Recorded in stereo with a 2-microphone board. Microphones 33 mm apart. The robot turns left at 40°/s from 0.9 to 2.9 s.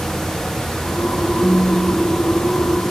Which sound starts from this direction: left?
A phone buzzing, at 1.4 s.